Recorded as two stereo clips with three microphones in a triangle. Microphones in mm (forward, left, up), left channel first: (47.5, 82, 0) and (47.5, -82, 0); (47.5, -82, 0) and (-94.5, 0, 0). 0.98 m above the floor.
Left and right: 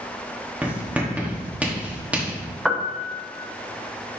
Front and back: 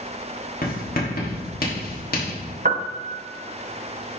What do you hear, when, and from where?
0.6 s writing: 10° right, 1.4 m
2.6 s a piano: 175° right, 0.7 m